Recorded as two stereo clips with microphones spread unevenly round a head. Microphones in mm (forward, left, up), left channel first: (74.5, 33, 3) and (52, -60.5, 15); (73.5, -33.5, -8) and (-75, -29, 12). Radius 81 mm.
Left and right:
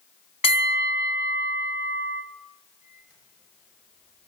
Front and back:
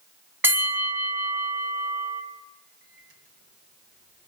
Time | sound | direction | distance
0.4 | a bell | 110° left | 1.8 m
2.8 | a microwave | 175° left | 7 m